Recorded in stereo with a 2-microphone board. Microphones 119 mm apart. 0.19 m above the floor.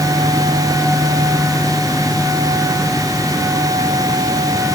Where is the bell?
No bell in this recording.